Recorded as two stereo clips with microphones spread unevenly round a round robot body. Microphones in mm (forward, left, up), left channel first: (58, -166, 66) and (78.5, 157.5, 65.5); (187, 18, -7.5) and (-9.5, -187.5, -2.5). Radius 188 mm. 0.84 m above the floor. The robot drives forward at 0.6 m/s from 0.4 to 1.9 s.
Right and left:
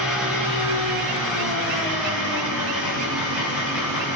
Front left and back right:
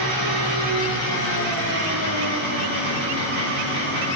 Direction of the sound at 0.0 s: 175° left.